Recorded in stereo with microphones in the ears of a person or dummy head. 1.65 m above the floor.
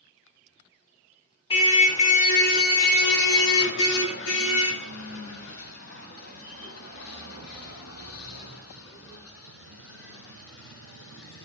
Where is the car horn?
30° left (ahead or behind), 2.5 m; by 11.4 s 80° left, 10.5 m.